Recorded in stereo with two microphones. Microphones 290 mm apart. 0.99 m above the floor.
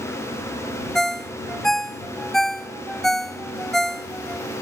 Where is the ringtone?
Centre (ahead or behind).